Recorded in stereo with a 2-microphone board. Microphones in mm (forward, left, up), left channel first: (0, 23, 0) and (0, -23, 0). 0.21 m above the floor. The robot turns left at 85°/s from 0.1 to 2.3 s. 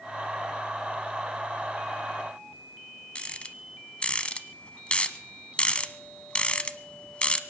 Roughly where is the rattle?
Left.